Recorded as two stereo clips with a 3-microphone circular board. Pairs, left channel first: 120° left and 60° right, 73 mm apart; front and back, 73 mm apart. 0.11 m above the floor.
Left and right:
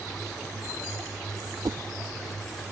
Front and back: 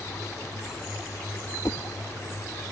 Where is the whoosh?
40° right.